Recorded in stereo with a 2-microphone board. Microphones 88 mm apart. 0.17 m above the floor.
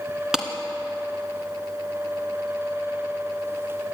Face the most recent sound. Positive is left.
turn(degrees=-5)  # may be behind; listen again after turning